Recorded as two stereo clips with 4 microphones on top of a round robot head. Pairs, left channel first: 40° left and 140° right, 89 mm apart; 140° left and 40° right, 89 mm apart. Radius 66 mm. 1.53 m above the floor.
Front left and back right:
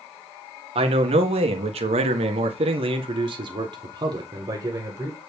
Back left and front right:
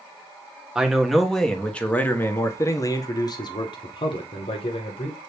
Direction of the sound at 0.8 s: 125° right.